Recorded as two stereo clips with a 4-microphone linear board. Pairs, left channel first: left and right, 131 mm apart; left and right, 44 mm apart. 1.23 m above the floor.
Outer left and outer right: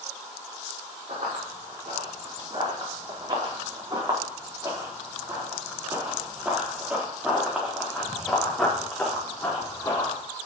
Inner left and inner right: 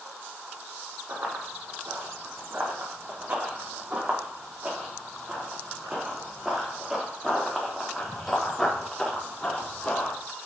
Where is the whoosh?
No whoosh in this recording.